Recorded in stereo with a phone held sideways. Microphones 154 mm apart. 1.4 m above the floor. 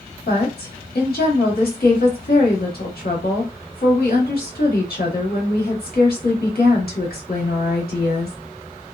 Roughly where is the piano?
No piano in this recording.